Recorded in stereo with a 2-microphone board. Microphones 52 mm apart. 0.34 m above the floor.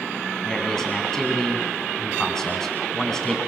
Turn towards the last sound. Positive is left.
turn(degrees=10)  # may be behind; listen again after turning